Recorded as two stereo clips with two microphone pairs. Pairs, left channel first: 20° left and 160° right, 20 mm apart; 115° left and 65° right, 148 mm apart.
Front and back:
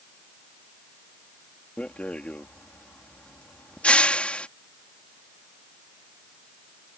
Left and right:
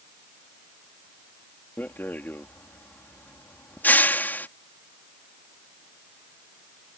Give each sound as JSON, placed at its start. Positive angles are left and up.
{"t": 1.8, "sound": "a rattle", "azimuth_deg": 35}